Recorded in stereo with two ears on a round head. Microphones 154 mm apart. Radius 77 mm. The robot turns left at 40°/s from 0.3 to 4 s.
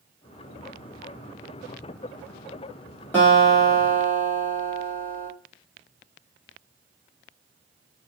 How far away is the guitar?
About 1.4 m.